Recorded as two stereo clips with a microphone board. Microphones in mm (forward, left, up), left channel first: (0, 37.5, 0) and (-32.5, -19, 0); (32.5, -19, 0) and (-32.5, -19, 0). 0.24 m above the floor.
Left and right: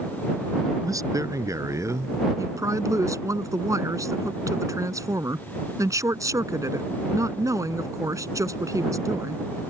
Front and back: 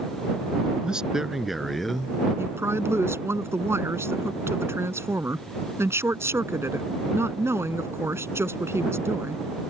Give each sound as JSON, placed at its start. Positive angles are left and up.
{"t": 0.8, "sound": "a man speaking", "azimuth_deg": -105}
{"t": 2.4, "sound": "a woman speaking", "azimuth_deg": -140}